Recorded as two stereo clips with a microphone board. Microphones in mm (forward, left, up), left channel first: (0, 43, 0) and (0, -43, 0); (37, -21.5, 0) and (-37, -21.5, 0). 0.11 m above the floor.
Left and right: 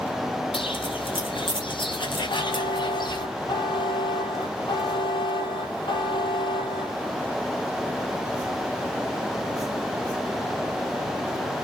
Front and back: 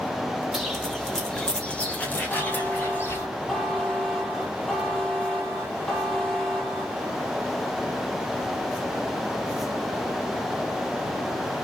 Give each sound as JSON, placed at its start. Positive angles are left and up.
{"t": 0.5, "sound": "footsteps", "azimuth_deg": 90, "distance_m": 4.5}
{"t": 2.3, "sound": "a buzzer", "azimuth_deg": 80, "distance_m": 4.0}